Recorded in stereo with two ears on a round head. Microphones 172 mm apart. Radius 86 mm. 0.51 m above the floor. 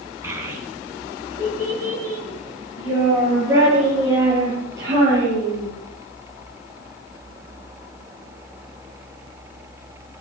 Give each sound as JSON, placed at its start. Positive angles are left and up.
{"t": 0.2, "sound": "a child speaking", "side_deg": -15, "distance_m": 4.5}